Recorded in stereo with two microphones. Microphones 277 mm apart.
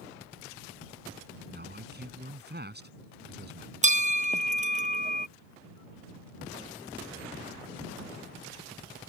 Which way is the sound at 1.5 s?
35° right (ahead or behind).